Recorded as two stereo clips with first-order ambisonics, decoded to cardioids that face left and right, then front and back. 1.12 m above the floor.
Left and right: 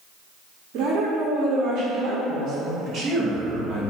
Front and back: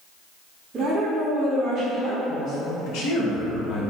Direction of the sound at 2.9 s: 25° right.